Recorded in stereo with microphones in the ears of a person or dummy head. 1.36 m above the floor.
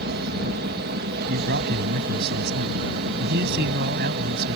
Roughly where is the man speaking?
Right.